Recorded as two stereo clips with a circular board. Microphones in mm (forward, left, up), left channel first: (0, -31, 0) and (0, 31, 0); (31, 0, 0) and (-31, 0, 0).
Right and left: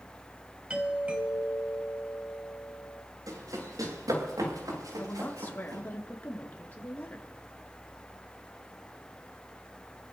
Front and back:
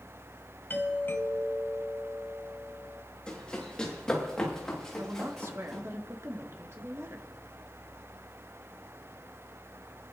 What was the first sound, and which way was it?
A doorbell, 25° left.